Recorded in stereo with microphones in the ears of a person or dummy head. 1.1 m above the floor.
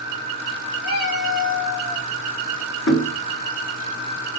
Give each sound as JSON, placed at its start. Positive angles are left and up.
{"t": 0.8, "sound": "a cat meowing", "side_deg": 70, "distance_m": 2.5}
{"t": 2.9, "sound": "knocking", "side_deg": 65, "distance_m": 1.7}